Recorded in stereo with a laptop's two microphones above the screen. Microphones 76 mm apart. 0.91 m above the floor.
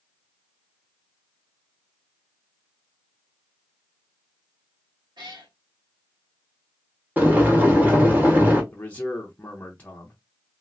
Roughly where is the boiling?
Right.